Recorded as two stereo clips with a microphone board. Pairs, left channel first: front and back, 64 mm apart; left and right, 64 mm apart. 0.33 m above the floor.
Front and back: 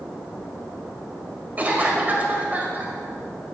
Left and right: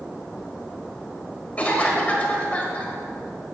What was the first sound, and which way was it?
A cough, 140° left.